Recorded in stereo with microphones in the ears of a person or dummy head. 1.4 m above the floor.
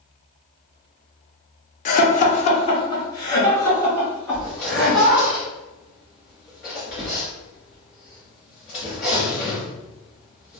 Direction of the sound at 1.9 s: 35° left (ahead or behind).